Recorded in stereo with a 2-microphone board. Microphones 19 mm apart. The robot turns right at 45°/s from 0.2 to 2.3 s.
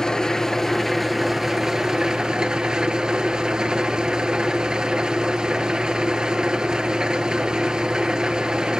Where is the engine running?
145° left, 1.0 m; by 8.8 s 120° right, 1.0 m.